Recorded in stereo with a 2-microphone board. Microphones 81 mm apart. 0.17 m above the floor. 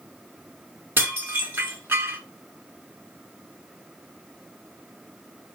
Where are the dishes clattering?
30° right (ahead or behind), 1.3 m.